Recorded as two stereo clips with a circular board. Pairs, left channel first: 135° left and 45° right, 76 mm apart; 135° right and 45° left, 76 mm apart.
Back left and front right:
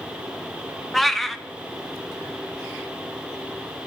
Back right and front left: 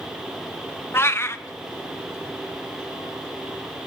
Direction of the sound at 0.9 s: 140° right.